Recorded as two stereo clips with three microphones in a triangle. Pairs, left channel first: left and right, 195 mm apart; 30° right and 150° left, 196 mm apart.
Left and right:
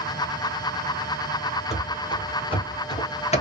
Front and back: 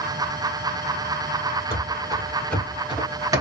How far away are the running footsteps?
About 1.5 m.